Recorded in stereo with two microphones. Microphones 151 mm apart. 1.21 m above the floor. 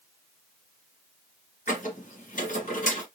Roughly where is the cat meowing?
No cat meowing in this recording.